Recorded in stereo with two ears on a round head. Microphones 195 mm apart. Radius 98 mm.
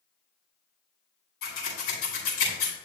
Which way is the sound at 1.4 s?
65° left (ahead or behind).